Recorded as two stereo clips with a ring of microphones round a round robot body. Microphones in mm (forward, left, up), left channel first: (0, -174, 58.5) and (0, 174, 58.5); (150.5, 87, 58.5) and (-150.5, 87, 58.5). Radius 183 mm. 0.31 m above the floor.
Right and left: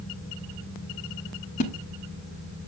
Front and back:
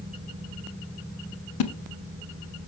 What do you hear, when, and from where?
1.6 s a splash: 20° right, 0.7 m